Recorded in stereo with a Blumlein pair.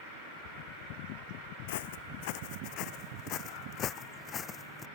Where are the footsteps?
50° left; by 4.9 s 20° left.